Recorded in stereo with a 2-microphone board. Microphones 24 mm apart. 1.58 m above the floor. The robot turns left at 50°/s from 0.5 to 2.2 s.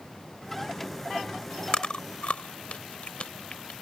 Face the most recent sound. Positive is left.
turn(degrees=55)  # may be behind; listen again after turning